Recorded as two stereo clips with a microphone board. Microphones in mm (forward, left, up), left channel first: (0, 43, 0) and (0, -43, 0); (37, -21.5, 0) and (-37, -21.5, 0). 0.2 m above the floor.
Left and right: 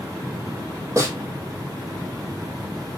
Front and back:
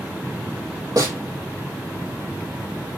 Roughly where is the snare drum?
Behind right.